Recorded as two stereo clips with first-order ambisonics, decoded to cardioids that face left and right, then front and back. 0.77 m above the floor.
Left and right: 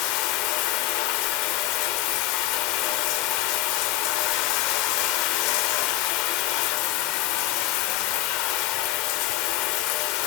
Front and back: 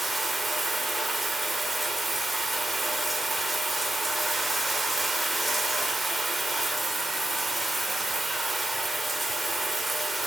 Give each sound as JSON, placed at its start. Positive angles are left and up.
{"t": 0.0, "sound": "running water", "azimuth_deg": 95, "distance_m": 0.8}